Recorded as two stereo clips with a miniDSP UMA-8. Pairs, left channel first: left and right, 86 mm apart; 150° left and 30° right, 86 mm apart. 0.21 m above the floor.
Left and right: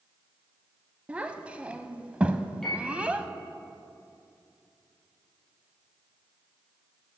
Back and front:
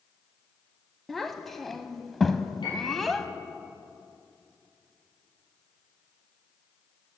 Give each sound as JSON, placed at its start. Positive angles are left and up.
{"t": 1.1, "sound": "a child speaking", "azimuth_deg": -130, "distance_m": 0.6}
{"t": 2.6, "sound": "a piano", "azimuth_deg": 175, "distance_m": 4.5}